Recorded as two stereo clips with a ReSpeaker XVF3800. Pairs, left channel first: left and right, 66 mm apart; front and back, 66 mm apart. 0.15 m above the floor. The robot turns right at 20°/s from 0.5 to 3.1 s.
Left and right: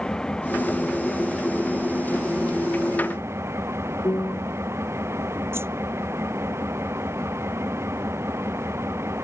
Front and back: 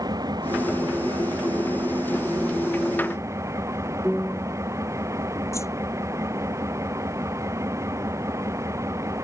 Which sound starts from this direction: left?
A piano, at 4.0 s.